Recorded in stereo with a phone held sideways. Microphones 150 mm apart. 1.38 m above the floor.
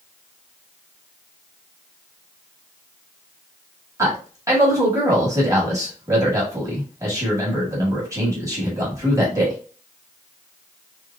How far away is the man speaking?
About 1.4 m.